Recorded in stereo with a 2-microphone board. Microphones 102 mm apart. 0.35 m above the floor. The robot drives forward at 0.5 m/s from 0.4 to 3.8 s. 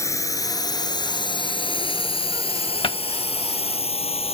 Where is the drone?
30° left (ahead or behind); by 4.3 s 80° left.